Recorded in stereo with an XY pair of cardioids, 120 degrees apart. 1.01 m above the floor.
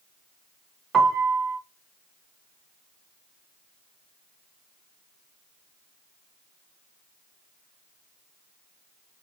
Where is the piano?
35° right, 0.6 m.